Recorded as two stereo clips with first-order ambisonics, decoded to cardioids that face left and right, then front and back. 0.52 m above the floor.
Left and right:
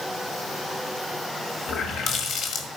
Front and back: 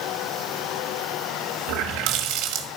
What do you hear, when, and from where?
1.7 s a running tap: 145° left, 1.6 m